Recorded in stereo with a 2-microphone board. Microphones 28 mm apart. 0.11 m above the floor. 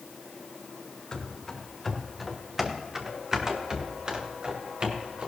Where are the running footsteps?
15° left (ahead or behind), 2 m; by 5.3 s 45° right (ahead or behind), 3.5 m.